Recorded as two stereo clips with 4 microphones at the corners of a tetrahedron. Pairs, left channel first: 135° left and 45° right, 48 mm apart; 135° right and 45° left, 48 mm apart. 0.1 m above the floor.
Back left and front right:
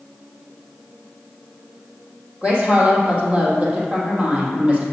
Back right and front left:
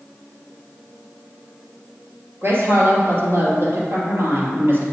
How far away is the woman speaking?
About 2.5 m.